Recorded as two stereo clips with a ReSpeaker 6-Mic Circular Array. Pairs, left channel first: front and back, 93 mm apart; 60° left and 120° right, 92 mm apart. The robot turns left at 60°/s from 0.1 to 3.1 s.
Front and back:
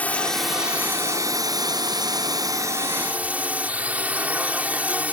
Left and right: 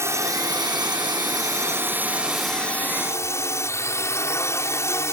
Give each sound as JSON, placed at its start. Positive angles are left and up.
{"t": 0.0, "sound": "a drone", "azimuth_deg": -70}